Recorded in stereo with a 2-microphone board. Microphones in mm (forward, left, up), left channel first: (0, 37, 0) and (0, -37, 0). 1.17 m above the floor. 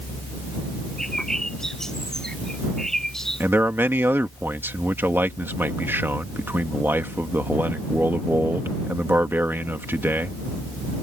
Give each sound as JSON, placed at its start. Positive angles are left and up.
{"t": 1.0, "sound": "a bird", "side_deg": 10}
{"t": 3.4, "sound": "a man speaking", "side_deg": -30}